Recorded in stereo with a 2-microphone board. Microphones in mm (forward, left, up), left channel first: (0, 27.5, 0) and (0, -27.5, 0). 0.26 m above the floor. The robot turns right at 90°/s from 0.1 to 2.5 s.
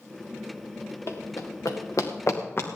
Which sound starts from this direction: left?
Running footsteps, at 1.1 s.